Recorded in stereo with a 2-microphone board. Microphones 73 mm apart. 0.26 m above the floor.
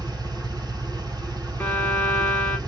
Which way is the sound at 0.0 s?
70° right (ahead or behind).